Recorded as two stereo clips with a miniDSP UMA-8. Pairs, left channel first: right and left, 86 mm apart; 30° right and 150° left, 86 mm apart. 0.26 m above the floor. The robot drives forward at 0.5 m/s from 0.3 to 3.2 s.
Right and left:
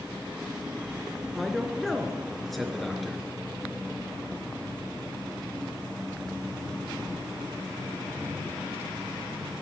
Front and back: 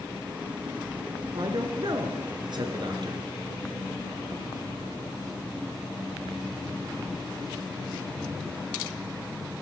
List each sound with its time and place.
1.3 s a man speaking: 175° right, 3 m; by 3.2 s straight behind, 4 m